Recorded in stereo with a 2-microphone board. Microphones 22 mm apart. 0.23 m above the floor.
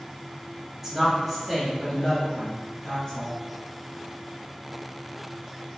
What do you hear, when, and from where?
0.8 s a woman speaking: 10° right (ahead or behind), 1.0 m; by 3.4 s 35° left (ahead or behind), 1.3 m